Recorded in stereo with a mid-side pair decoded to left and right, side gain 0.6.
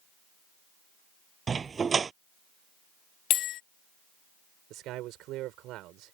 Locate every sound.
1.5 s a dog barking: 30° right
3.3 s a bell: 65° left
4.7 s a man speaking: 65° right